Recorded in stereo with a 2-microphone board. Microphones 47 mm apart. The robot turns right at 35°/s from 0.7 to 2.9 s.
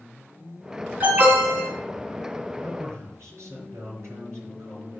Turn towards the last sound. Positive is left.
turn(degrees=-75)  # may be behind; listen again after turning